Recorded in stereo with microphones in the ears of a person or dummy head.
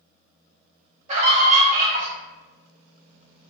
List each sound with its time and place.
1.1 s a scream: 35° right (ahead or behind), 0.7 m